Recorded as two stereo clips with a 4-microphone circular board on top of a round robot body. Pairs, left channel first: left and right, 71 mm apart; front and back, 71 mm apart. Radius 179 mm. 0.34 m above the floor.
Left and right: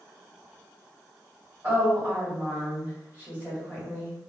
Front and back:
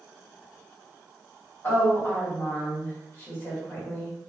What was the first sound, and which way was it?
A woman speaking, 35° right.